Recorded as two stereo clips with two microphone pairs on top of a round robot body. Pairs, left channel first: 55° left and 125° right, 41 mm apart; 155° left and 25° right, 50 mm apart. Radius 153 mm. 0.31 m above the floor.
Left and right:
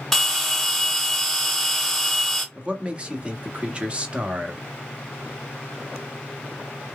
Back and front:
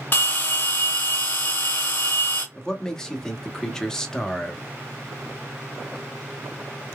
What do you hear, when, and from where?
0.1 s a bell: 150° left, 1.5 m
2.5 s a man speaking: 140° right, 1.4 m